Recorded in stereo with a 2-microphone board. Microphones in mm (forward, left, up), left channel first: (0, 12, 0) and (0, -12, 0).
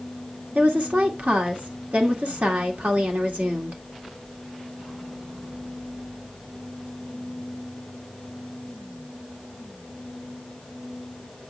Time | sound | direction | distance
0.6 | a woman speaking | 75° right (ahead or behind) | 2.5 m